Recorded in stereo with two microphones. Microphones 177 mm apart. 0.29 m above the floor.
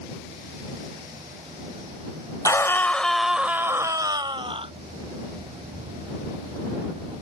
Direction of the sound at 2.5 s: 20° left (ahead or behind).